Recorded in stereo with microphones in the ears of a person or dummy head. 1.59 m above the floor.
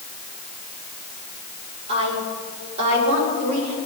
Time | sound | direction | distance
1.9 | a woman speaking | 25° right (ahead or behind) | 4.5 m